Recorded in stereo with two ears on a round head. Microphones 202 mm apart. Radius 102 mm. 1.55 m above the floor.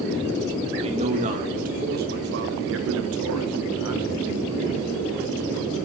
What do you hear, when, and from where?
0.8 s a man speaking: 30° right (ahead or behind), 3 m; by 4.9 s 60° right (ahead or behind), 2 m